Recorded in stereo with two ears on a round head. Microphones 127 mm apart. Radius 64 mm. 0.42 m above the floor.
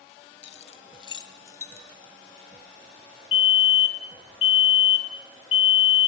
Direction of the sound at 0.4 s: 55° left (ahead or behind).